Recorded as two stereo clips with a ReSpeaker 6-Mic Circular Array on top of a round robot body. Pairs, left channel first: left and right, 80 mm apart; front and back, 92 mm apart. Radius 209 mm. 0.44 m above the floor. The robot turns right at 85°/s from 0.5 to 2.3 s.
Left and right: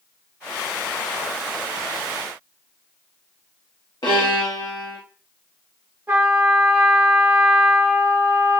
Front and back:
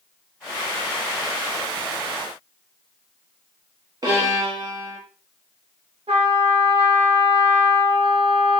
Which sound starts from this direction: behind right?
A trumpet, at 6.1 s.